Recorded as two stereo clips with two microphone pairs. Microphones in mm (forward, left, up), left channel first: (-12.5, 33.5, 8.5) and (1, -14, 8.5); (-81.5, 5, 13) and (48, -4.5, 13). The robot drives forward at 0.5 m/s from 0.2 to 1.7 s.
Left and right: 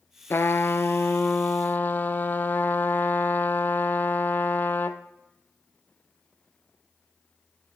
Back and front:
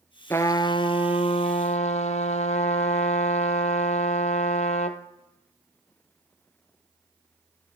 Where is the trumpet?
110° left, 0.5 m; by 5.0 s 155° left, 1.0 m.